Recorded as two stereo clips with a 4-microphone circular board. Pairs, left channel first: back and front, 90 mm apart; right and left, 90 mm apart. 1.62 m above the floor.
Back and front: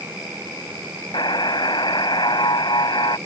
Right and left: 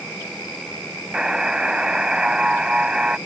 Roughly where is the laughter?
No laughter in this recording.